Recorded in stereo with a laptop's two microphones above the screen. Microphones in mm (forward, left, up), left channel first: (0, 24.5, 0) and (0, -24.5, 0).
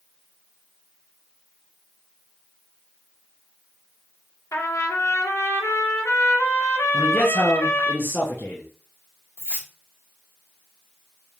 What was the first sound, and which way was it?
A trumpet, 80° left.